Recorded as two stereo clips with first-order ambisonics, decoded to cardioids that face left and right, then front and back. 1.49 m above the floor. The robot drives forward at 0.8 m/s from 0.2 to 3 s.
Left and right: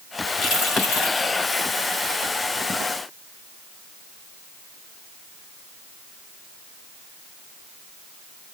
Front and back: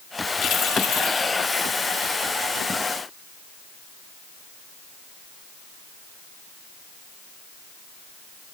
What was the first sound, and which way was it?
Keys jangling, 40° left.